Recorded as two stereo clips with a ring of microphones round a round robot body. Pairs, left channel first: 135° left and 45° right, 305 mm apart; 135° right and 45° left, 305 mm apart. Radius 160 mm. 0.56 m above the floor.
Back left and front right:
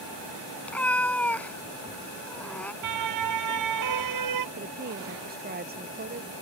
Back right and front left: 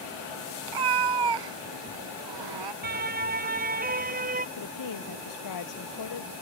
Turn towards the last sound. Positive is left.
turn(degrees=-105)